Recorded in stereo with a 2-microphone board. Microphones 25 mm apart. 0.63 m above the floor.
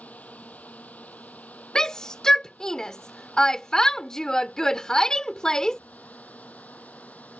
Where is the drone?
80° left; by 7.4 s 85° left.